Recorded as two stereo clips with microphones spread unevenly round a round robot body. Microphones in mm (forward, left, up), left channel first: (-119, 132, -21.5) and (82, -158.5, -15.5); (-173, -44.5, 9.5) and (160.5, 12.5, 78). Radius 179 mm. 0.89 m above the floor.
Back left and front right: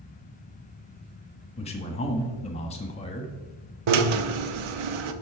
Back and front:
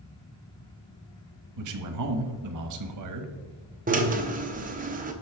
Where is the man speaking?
50° left, 1.4 m.